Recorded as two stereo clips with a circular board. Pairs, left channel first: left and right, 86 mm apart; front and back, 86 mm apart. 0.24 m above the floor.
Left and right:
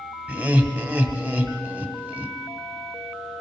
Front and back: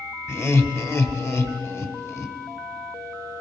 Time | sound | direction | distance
0.3 | laughter | 35° right | 1.1 m